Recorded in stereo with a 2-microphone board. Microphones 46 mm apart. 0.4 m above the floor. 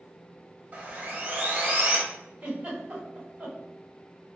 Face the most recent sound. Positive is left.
turn(degrees=-30)  # may be behind; listen again after turning